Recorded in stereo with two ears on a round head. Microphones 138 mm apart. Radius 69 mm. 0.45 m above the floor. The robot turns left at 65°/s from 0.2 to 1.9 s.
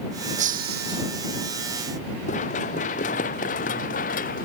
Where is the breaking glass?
50° right; by 1.1 s 95° right.